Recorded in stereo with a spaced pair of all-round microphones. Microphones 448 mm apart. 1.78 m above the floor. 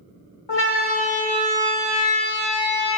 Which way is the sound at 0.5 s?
70° left (ahead or behind).